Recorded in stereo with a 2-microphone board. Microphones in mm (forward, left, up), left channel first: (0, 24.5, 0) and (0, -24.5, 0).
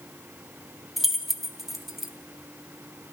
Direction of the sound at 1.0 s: 5° right (ahead or behind).